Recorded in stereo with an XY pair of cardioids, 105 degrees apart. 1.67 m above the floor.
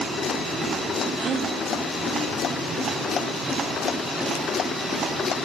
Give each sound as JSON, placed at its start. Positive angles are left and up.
{"t": 1.2, "sound": "a gasp", "azimuth_deg": -60, "distance_m": 1.2}